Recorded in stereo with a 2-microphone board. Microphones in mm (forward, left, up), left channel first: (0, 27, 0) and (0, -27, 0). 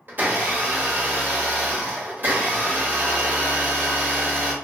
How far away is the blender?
About 1.0 m.